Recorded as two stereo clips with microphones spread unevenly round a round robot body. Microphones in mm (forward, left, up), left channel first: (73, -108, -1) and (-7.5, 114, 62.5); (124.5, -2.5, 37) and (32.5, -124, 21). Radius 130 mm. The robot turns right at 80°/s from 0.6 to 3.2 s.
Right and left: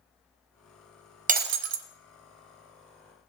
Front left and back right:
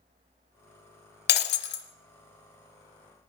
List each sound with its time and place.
1.3 s breaking glass: 50° left, 0.9 m; by 1.9 s 95° left, 0.9 m